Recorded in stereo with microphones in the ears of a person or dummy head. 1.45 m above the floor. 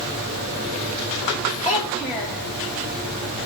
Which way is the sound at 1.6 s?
20° left (ahead or behind).